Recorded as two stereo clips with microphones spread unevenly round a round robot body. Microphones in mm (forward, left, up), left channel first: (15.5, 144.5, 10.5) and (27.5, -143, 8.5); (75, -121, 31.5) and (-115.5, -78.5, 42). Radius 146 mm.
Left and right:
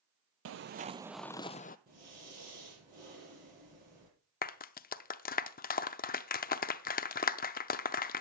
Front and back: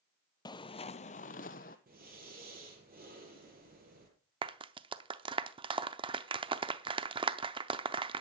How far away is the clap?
About 0.6 m.